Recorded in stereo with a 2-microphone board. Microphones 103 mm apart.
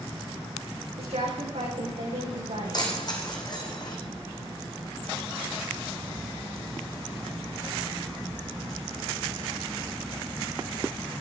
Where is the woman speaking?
80° right, 7.5 m.